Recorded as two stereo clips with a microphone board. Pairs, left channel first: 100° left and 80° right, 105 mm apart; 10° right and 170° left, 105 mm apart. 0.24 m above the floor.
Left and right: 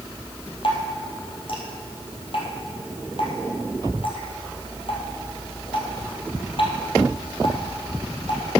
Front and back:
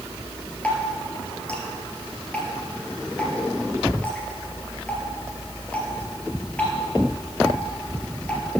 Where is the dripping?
65° left, 3 m.